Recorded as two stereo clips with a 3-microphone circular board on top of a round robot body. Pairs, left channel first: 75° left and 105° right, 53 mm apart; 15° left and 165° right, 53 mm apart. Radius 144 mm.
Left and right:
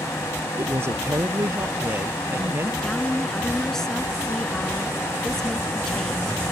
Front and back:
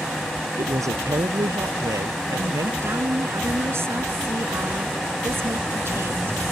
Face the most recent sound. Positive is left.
turn(degrees=155)